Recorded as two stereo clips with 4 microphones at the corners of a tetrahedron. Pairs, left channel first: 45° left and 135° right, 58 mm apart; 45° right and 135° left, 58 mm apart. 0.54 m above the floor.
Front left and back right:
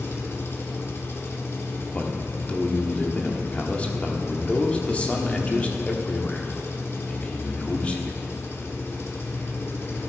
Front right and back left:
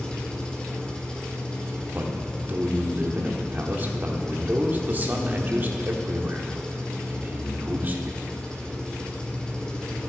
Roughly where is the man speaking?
Left.